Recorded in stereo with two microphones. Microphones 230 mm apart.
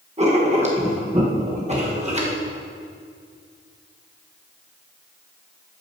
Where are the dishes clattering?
No dishes clattering in this recording.